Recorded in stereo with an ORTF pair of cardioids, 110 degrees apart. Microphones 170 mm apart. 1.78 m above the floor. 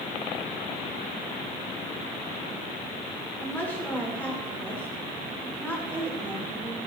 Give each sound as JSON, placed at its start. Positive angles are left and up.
{"t": 3.4, "sound": "a woman speaking", "azimuth_deg": 10, "distance_m": 7.5}